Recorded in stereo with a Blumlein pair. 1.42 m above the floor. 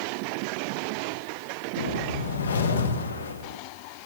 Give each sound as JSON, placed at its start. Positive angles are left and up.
{"t": 1.8, "sound": "a whoosh", "azimuth_deg": 65, "distance_m": 0.9}